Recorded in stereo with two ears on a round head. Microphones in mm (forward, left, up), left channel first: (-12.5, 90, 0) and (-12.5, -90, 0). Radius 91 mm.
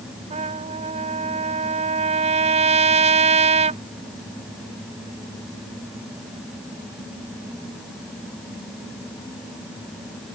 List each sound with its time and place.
0.3 s a trumpet: 35° right (ahead or behind)